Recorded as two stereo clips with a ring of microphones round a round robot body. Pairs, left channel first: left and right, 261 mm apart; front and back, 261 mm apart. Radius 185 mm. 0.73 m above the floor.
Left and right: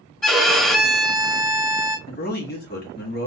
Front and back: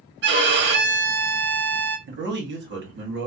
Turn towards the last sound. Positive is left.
turn(degrees=140)